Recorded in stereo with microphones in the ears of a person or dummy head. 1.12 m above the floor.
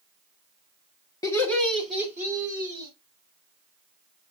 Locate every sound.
1.2 s laughter: 25° left (ahead or behind), 1.6 m; by 2.9 s 15° right (ahead or behind), 3 m